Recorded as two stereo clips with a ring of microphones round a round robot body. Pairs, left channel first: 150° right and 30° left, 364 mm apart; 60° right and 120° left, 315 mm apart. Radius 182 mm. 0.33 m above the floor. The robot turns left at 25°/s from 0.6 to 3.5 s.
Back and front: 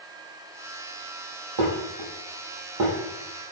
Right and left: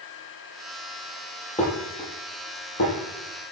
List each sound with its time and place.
1.6 s dishes clattering: 10° left, 7.5 m; by 2.9 s 25° right, 7.5 m